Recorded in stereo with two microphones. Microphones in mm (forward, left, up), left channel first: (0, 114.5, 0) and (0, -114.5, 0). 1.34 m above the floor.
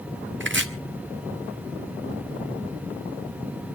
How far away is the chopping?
About 1.3 m.